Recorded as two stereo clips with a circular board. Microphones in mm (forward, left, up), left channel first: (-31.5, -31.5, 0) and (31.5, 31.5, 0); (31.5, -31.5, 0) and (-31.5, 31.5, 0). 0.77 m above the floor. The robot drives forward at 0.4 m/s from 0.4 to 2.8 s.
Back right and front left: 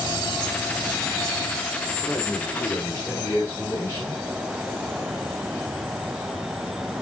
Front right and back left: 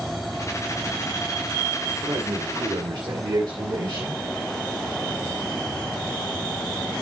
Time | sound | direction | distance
2.0 | a man speaking | 160° left | 1.9 m